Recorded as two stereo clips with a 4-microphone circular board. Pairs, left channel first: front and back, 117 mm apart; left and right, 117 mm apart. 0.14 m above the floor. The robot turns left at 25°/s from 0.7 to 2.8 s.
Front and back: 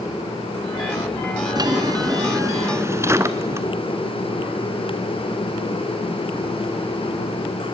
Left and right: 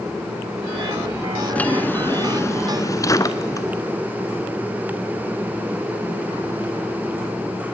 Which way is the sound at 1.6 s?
160° left.